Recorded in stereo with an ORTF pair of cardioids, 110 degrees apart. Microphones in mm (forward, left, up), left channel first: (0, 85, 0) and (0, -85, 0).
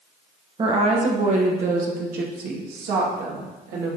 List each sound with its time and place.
0.6 s a woman speaking: 30° right, 1.2 m; by 4.0 s 75° right, 2.5 m